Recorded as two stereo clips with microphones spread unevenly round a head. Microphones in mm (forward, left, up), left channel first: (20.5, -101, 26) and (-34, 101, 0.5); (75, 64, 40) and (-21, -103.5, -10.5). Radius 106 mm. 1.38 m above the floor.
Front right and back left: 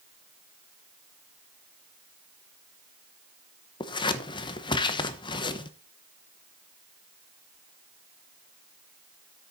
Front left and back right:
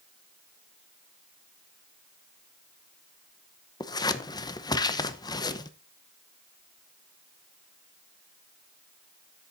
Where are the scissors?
5° right, 0.9 m.